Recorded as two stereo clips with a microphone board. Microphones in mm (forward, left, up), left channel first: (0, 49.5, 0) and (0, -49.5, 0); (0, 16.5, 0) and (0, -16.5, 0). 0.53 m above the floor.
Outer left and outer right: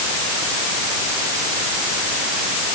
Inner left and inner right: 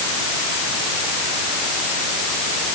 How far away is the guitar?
No guitar in this recording.